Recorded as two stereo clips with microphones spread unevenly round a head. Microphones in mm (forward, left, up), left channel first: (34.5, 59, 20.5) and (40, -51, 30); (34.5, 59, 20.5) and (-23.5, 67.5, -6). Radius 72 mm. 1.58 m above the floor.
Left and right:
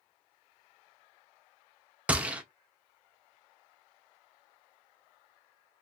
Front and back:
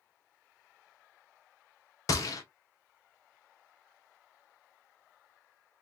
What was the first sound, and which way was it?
A gunshot, 10° right.